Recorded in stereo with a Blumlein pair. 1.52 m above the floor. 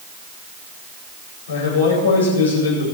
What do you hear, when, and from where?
1.5 s a man speaking: 65° left, 8 m